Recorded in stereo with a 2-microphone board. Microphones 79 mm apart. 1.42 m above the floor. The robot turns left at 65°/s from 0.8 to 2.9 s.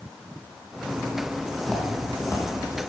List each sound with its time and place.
1.6 s footsteps: 5° left (ahead or behind), 2.5 m; by 2.5 s 45° left (ahead or behind), 2.5 m